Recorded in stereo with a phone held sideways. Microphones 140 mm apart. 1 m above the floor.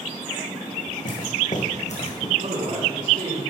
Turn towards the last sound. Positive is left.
turn(degrees=-65)  # may be behind; listen again after turning